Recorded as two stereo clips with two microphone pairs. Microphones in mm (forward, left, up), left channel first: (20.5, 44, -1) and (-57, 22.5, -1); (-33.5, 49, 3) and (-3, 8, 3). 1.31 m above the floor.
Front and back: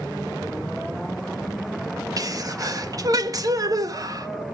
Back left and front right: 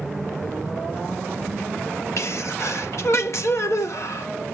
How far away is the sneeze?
About 1.3 m.